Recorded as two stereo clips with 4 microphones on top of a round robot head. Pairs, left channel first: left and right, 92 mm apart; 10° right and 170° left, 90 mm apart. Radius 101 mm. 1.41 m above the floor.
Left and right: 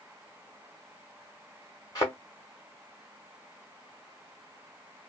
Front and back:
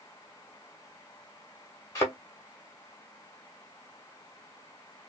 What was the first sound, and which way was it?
A thud, 35° left.